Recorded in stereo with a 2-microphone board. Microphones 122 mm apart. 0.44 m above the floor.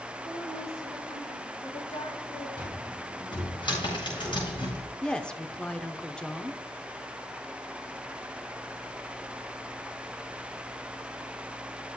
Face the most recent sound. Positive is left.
turn(degrees=5)  # may be behind; listen again after turning